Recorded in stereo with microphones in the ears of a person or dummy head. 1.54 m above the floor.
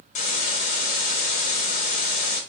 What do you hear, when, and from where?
0.1 s a hiss: 40° left (ahead or behind), 0.8 m